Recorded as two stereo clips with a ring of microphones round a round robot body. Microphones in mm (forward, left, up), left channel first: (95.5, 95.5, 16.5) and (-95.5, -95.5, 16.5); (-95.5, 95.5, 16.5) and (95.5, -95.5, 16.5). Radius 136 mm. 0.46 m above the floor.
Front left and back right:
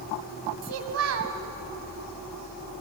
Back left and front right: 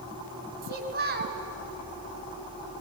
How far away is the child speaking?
About 2 m.